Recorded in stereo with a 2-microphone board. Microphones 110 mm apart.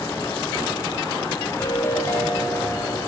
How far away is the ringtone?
About 2 m.